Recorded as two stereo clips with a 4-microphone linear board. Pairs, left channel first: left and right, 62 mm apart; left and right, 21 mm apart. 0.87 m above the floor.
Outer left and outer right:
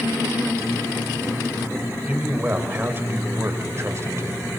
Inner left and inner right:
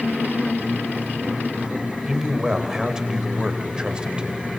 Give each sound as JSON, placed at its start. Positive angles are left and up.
{"t": 2.1, "sound": "a man speaking", "side_deg": -25, "distance_m": 3.5}